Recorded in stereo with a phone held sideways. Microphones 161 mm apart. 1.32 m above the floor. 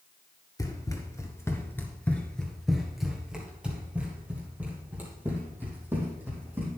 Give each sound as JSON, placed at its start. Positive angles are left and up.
{"t": 0.6, "sound": "running footsteps", "side_deg": 25, "distance_m": 1.5}